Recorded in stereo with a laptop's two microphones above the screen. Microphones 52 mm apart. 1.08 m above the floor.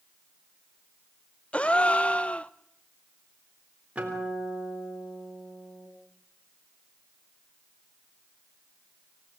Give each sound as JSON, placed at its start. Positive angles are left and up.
{"t": 1.5, "sound": "a gasp", "side_deg": 25, "distance_m": 0.5}
{"t": 4.0, "sound": "a guitar", "side_deg": -25, "distance_m": 3.5}